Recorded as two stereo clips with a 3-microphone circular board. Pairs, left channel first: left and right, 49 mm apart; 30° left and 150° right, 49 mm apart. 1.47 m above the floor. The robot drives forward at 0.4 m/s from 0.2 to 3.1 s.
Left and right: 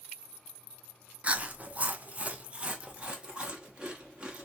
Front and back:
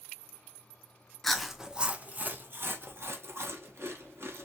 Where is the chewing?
50° right, 0.5 m; by 4.5 s 160° right, 0.7 m.